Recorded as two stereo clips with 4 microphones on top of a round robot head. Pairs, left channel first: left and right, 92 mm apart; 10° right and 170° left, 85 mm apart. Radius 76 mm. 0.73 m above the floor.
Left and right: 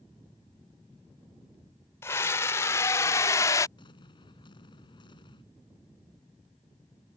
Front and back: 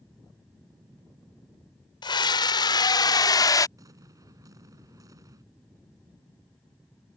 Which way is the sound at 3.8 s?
125° left.